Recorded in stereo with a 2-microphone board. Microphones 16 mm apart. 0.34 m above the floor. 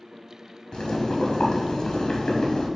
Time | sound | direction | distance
0.7 | boiling | 60° left (ahead or behind) | 1.3 m